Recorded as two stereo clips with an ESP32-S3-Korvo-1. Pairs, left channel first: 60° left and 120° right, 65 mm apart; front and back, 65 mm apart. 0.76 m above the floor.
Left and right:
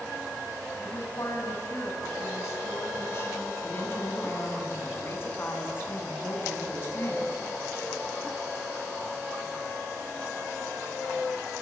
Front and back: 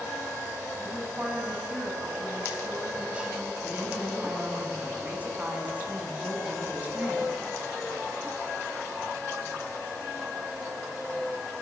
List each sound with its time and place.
0.8 s a woman speaking: 110° left, 5 m
3.6 s a woman speaking: 115° left, 6 m